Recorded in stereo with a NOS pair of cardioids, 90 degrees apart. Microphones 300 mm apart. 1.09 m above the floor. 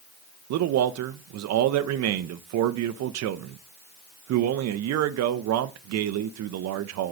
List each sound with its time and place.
0.5 s a man speaking: 65° right, 0.7 m